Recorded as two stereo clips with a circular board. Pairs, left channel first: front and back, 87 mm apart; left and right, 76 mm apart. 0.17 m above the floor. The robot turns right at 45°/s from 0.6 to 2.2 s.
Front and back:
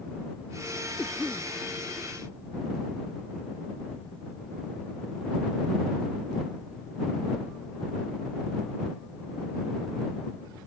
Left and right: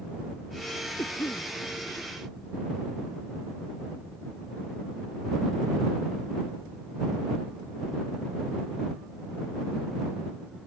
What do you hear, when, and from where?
1.0 s a cough: 75° left; by 1.5 s 95° left